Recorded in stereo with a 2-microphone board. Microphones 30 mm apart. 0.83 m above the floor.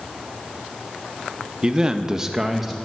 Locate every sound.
1.6 s a man speaking: 20° right (ahead or behind), 0.9 m; by 2.8 s 5° right (ahead or behind), 0.9 m